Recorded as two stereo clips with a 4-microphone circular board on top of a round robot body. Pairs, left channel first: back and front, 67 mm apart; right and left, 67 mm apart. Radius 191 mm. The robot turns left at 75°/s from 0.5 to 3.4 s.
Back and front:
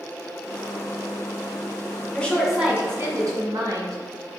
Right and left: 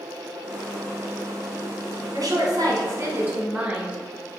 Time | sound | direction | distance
2.1 | a woman speaking | 105° left | 2.0 m